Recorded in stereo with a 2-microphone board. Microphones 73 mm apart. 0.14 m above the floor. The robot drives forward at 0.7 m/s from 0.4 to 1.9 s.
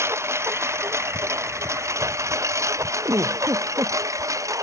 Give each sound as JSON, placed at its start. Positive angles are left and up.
{"t": 0.0, "sound": "a lawn mower", "side_deg": -35}
{"t": 3.0, "sound": "a giggle", "side_deg": -45}